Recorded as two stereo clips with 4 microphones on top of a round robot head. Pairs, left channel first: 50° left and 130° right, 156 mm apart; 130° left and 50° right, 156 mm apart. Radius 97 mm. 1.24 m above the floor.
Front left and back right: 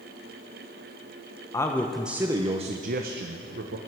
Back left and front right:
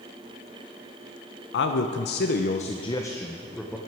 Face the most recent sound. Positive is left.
turn(degrees=-140)